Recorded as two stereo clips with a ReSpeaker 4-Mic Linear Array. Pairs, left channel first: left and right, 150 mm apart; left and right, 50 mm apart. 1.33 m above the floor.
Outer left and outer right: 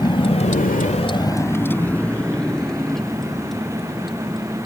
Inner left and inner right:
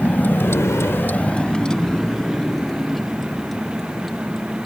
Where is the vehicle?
30° left (ahead or behind); by 4.7 s centre (ahead or behind).